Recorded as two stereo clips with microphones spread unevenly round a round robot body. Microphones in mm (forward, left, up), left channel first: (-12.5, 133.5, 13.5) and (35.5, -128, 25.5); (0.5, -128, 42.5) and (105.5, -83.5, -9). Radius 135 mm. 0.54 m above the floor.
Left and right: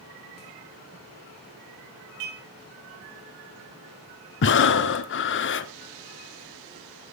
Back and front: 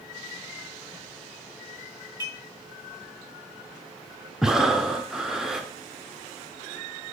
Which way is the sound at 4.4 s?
80° left.